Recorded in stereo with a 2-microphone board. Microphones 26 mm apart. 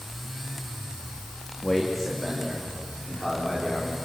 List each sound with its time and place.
1.6 s a man speaking: 10° left (ahead or behind), 2.5 m; by 4.0 s 5° right (ahead or behind), 4.5 m